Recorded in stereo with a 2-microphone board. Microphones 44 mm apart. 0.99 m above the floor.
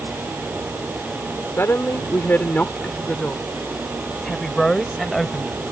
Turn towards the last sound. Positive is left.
turn(degrees=0)  # may be behind; listen again after turning